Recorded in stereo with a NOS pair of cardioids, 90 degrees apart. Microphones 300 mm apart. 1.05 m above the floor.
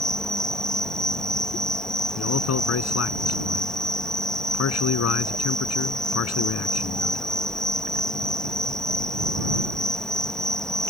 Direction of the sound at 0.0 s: Straight ahead.